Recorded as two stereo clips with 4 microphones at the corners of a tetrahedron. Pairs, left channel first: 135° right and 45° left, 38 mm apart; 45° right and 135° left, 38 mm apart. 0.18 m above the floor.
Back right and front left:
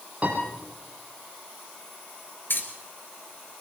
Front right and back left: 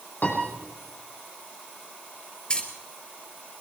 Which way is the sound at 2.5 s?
115° right.